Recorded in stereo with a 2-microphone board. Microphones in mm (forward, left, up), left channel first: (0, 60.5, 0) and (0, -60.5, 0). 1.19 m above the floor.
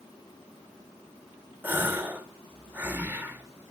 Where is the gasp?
15° right (ahead or behind), 0.5 m.